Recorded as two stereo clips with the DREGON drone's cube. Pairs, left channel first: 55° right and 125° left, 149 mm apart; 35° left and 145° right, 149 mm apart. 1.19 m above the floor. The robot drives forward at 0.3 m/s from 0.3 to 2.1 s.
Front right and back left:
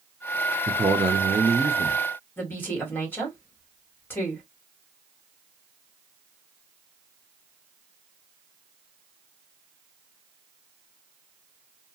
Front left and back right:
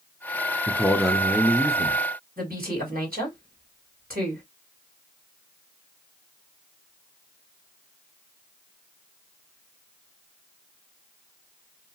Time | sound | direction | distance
0.7 | a man speaking | 110° left | 0.5 m
2.4 | a woman speaking | 135° right | 1.5 m